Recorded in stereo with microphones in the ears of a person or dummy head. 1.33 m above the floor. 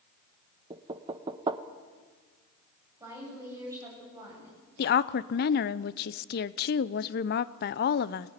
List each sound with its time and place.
0.7 s knocking: 15° right (ahead or behind), 0.9 m
3.0 s a woman speaking: 25° right (ahead or behind), 9 m
4.8 s a woman speaking: 50° left (ahead or behind), 0.7 m